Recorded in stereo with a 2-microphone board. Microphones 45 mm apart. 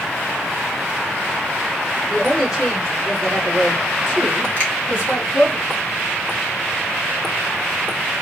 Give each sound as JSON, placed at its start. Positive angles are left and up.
{"t": 2.1, "sound": "a woman speaking", "side_deg": 0, "distance_m": 3.0}
{"t": 4.6, "sound": "a finger snap", "side_deg": 30, "distance_m": 1.8}